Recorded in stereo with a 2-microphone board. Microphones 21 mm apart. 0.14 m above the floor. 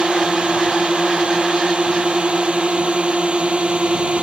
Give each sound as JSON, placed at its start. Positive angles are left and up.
{"t": 0.0, "sound": "a drone", "side_deg": -60}